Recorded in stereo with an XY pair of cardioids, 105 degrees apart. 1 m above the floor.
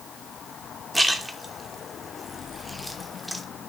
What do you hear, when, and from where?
0.9 s a splash: 5° right, 1.1 m